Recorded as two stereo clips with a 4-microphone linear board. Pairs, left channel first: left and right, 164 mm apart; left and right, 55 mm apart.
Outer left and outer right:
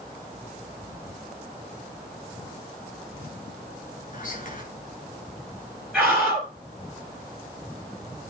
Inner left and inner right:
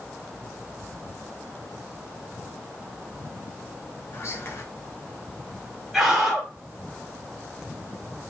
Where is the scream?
Centre (ahead or behind), 3.5 m.